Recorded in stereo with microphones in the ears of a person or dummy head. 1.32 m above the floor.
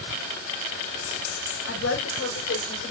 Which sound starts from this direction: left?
A woman speaking, at 1.7 s.